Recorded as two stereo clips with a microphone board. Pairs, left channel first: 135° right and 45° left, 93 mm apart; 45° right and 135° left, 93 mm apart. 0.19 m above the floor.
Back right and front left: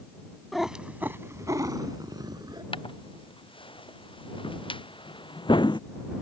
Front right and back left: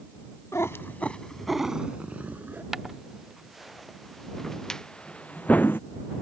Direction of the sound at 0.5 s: 45° right.